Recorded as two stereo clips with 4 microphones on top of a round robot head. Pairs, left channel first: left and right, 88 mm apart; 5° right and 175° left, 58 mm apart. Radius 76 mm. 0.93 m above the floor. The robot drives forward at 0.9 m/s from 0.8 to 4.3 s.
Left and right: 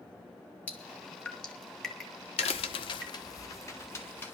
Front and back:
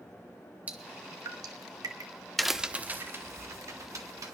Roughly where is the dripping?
Behind left.